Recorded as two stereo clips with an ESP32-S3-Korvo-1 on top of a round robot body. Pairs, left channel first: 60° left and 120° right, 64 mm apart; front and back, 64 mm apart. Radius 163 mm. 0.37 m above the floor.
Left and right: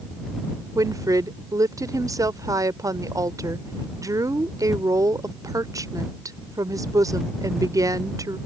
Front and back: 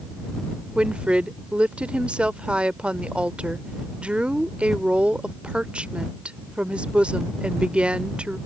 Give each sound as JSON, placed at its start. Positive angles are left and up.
{"t": 0.8, "sound": "a woman speaking", "azimuth_deg": -110}